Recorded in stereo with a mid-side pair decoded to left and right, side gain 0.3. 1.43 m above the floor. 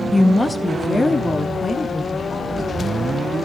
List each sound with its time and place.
0.1 s a woman speaking: 20° left, 1.5 m; by 2.6 s 45° left, 4.5 m